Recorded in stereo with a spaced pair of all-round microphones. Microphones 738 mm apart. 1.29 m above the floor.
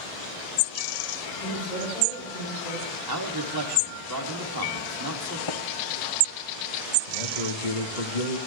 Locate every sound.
1.3 s a woman speaking: 65° left (ahead or behind), 10 m
3.1 s a man speaking: 30° right (ahead or behind), 3 m
5.5 s tapping: 35° left (ahead or behind), 1.3 m
7.1 s a man speaking: 70° left (ahead or behind), 1.9 m